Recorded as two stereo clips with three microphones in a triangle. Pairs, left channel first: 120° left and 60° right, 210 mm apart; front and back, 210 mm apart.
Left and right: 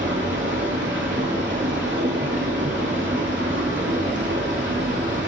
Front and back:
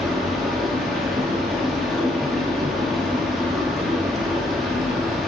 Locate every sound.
0.0 s running water: 90° right, 3 m